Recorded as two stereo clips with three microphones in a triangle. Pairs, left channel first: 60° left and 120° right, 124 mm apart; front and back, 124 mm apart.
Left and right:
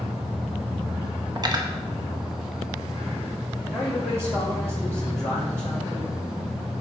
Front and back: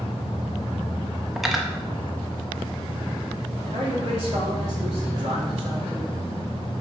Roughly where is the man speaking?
Behind.